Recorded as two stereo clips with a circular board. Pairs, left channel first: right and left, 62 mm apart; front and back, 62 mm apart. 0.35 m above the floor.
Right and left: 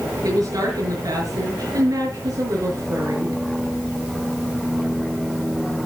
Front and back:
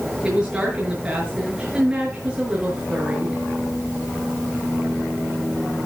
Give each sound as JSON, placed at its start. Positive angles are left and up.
{"t": 0.2, "sound": "a woman speaking", "azimuth_deg": 105, "distance_m": 6.0}